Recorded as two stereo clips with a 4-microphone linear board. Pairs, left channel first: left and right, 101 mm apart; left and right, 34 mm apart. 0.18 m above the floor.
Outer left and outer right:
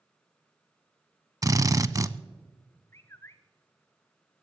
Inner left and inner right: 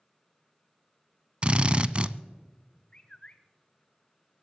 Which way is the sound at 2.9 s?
25° left (ahead or behind).